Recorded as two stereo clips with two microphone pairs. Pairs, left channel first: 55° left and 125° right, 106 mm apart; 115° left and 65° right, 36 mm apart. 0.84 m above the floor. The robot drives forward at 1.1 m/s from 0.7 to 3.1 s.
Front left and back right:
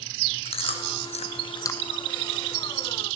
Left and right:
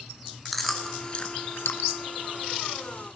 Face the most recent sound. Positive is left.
turn(degrees=165)